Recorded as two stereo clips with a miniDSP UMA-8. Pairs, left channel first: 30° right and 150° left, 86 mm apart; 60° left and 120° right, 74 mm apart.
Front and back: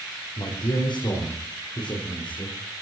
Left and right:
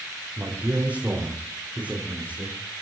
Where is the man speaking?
45° right, 5 m; by 2.6 s 50° right, 6.5 m.